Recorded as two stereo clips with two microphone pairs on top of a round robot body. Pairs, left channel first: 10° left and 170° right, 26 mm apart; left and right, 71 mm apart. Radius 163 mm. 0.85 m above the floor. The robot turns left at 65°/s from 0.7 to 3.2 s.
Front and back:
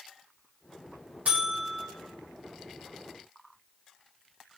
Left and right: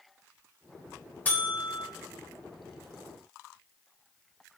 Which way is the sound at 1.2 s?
160° left.